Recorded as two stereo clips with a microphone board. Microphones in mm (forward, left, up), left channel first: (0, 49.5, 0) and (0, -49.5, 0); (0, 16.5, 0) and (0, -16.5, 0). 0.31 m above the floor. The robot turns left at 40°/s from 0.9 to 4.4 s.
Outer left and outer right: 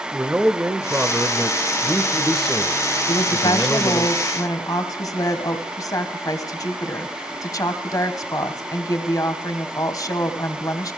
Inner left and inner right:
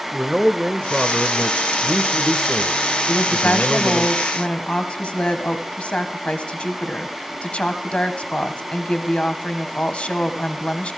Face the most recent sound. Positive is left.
turn(degrees=50)